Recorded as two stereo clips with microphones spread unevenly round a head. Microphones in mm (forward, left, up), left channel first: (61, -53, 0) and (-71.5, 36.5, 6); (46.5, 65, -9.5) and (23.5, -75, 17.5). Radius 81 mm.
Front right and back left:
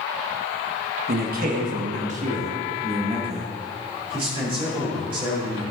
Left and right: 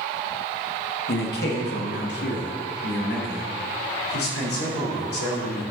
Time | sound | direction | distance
1.1 | a man speaking | 110° left | 1.3 m